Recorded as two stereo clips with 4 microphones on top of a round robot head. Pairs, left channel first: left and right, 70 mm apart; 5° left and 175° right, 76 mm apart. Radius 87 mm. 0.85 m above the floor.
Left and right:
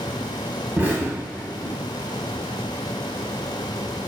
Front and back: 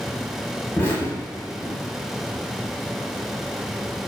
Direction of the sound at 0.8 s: 40° right.